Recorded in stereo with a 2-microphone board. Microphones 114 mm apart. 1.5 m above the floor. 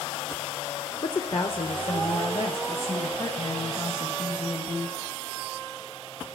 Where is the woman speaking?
40° left (ahead or behind), 0.7 m; by 5.0 s 60° left (ahead or behind), 2.5 m.